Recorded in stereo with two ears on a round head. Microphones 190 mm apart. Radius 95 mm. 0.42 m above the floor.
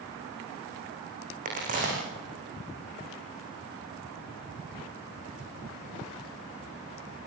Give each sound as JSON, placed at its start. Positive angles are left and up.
{"t": 1.4, "sound": "a crack", "side_deg": -40, "distance_m": 9.5}